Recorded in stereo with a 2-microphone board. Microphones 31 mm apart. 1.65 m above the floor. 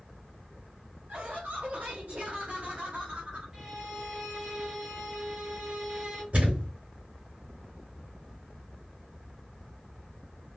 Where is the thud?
50° right (ahead or behind), 2.5 m.